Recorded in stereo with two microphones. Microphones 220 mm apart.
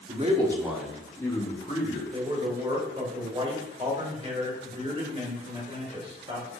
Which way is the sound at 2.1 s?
30° right (ahead or behind).